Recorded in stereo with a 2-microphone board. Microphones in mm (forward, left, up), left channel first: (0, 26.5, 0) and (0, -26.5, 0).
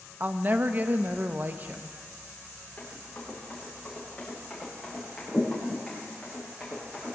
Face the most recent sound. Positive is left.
turn(degrees=-5)  # may be behind; listen again after turning